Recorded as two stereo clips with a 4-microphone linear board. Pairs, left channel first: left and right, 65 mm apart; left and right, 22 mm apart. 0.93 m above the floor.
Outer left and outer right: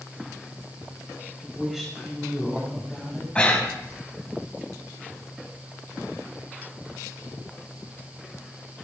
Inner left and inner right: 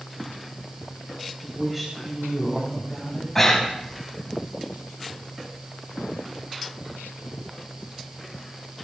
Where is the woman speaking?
5° right (ahead or behind), 5 m; by 3.2 s 10° left (ahead or behind), 6 m.